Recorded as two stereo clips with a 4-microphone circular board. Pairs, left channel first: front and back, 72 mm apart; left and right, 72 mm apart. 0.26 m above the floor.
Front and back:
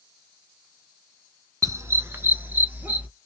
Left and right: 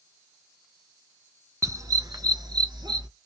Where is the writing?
I don't hear writing.